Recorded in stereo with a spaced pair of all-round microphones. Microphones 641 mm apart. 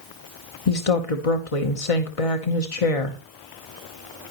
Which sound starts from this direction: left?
A woman speaking, at 0.7 s.